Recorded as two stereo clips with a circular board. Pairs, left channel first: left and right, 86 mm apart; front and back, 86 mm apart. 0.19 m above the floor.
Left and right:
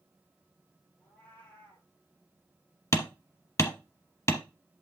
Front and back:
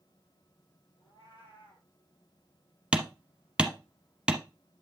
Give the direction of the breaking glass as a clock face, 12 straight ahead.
No breaking glass in this recording.